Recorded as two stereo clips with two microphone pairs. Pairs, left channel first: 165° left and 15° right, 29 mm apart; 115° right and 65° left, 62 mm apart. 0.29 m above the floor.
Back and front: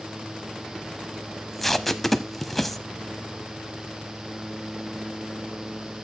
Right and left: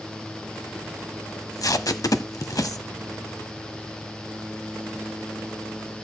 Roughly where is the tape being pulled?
Behind right.